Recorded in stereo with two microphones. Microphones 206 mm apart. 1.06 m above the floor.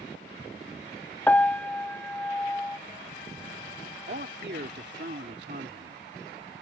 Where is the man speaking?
55° right (ahead or behind).